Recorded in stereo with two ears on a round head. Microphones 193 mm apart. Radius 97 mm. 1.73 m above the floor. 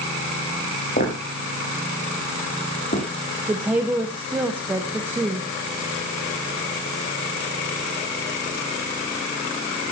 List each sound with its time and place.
1.0 s footsteps: 40° left (ahead or behind), 7 m; by 3.0 s 35° left (ahead or behind), 8 m
3.5 s a woman speaking: 10° right (ahead or behind), 1.5 m